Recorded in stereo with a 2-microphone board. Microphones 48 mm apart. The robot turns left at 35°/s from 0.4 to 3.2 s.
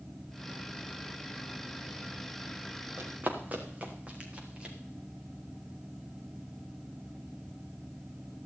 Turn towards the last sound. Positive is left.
turn(degrees=-20)  # may be behind; listen again after turning